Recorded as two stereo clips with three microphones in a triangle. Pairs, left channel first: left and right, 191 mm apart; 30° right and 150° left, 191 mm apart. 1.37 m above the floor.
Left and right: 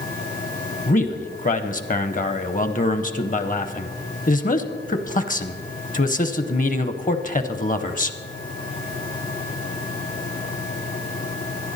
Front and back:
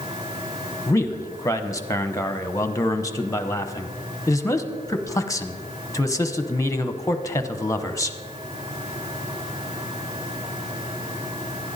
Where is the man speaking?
45° left, 0.9 m.